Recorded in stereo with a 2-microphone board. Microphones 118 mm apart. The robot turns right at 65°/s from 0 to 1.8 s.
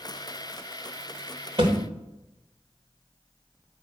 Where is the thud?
45° right (ahead or behind), 3 m; by 1.8 s 30° right (ahead or behind), 3 m.